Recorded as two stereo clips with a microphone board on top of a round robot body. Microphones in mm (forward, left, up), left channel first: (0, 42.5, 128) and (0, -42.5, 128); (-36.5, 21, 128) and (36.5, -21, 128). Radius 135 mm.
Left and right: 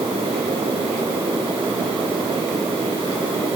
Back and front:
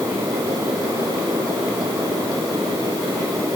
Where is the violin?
I don't hear a violin.